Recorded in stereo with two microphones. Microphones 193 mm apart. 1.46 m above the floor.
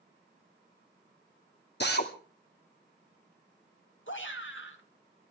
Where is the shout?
85° left, 2.5 m.